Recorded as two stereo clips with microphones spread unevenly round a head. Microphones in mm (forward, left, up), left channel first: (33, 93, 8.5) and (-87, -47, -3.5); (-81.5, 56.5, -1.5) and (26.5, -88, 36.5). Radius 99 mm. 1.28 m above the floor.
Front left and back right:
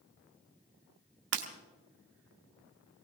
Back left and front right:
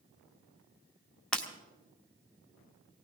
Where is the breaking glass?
140° right, 1.8 m.